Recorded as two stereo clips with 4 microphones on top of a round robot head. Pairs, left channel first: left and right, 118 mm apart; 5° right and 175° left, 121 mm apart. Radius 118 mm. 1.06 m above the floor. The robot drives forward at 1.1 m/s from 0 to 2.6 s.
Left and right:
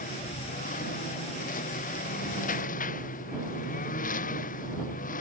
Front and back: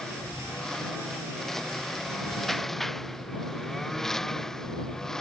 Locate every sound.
0.0 s a lawn mower: 80° left